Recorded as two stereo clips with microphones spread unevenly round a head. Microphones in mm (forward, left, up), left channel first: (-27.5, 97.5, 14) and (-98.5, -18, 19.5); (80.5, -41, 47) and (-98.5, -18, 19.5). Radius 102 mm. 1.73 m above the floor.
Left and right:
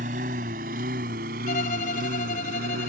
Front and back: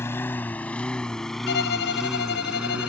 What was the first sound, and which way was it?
A lawn mower, 80° right.